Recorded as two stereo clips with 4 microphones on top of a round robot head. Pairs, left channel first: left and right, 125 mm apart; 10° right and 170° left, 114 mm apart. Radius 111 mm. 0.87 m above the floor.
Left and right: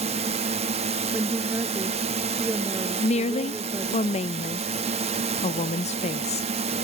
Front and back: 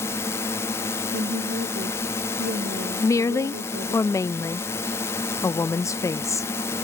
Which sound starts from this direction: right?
A drone, at 0.0 s.